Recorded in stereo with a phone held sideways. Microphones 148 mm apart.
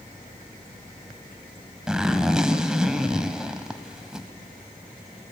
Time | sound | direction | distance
1.9 | a zipper | 5° right (ahead or behind) | 1.0 m